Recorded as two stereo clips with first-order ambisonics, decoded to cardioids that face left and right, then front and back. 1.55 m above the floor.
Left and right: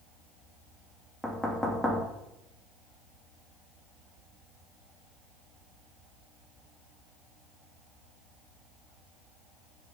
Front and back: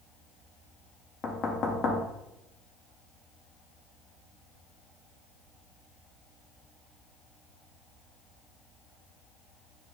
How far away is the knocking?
About 0.5 m.